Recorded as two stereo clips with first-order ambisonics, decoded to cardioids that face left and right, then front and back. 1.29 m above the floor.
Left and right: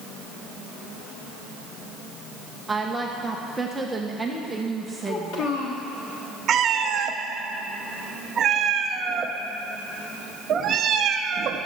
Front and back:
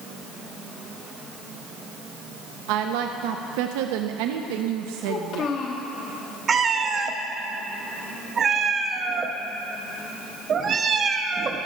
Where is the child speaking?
55° left, 1.3 m.